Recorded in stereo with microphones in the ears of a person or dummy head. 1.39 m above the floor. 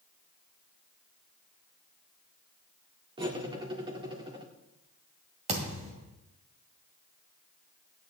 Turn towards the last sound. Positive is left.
turn(degrees=-35)  # may be behind; listen again after turning